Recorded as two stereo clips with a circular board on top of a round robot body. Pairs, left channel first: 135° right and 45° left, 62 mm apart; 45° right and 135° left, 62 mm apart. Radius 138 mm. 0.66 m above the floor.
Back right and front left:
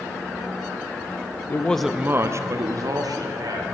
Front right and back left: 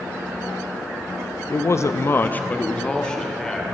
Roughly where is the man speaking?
Right.